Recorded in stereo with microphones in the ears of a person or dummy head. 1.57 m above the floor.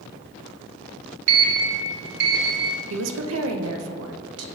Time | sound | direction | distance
1.3 | a sliding door | 70° right (ahead or behind) | 0.8 m
2.9 | a woman speaking | 75° right (ahead or behind) | 0.7 m